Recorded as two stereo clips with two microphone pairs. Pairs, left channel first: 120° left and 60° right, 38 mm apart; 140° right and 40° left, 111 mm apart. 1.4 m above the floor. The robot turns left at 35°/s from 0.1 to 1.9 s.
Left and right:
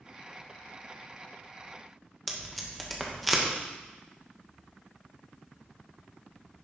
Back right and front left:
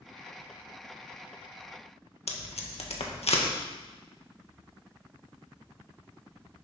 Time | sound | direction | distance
2.3 | tape being pulled | 150° right | 1.8 m